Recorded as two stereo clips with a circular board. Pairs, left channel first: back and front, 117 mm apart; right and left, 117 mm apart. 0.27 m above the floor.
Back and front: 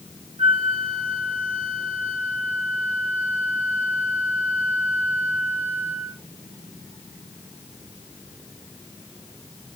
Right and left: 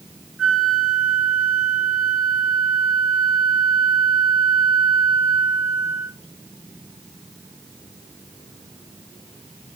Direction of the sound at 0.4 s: 5° right.